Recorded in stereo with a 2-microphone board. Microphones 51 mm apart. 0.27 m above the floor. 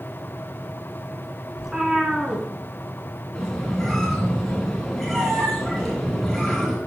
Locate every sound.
1.6 s a cat meowing: 10° right (ahead or behind), 1.4 m
3.4 s a squeak: centre (ahead or behind), 2.5 m